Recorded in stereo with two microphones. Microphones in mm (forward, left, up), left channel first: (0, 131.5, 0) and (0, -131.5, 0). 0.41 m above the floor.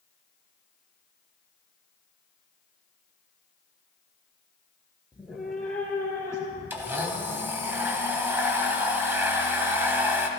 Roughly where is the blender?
Centre.